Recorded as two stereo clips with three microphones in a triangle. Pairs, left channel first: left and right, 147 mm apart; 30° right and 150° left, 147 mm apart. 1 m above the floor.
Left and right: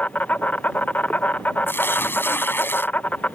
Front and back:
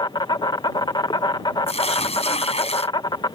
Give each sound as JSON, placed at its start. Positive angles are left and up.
{"t": 0.0, "sound": "an insect", "azimuth_deg": 15}
{"t": 1.7, "sound": "tearing paper", "azimuth_deg": 15}